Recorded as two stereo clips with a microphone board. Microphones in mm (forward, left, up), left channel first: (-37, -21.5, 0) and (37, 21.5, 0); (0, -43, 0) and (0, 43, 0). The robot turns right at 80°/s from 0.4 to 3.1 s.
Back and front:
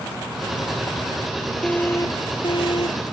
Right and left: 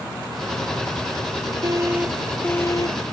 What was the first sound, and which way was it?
An alarm, 130° left.